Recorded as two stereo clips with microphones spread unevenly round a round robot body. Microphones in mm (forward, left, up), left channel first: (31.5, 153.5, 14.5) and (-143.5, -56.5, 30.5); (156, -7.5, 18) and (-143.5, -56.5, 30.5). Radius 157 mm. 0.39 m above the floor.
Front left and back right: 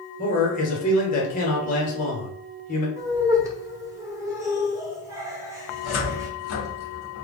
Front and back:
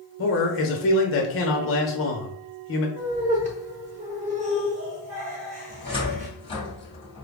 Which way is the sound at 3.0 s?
160° left.